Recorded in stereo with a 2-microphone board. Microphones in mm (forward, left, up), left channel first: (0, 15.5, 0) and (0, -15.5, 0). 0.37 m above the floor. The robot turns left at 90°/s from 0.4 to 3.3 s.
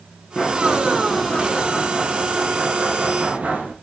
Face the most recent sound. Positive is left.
turn(degrees=-120)